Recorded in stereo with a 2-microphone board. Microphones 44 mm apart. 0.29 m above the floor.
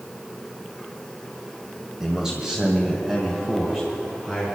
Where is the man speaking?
15° right (ahead or behind), 1.6 m; by 4.5 s 10° right (ahead or behind), 4 m.